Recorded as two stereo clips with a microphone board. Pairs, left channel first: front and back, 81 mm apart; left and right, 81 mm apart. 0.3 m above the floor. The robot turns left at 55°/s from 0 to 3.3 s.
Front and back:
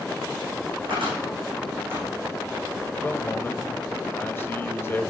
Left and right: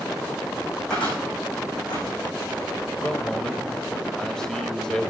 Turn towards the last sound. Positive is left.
turn(degrees=15)